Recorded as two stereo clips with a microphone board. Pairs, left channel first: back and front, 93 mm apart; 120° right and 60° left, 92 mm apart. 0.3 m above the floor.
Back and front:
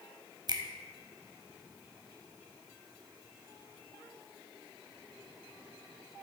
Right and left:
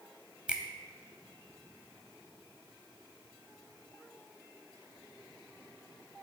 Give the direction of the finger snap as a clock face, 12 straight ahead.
1 o'clock.